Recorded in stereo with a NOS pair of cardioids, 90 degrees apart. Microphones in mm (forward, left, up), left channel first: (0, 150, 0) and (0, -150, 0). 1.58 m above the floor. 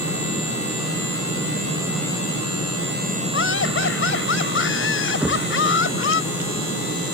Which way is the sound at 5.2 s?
5° right.